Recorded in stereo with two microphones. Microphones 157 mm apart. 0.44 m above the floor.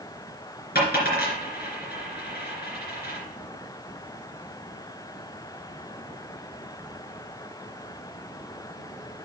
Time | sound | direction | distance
0.8 | a dropped coin | 80° left | 3 m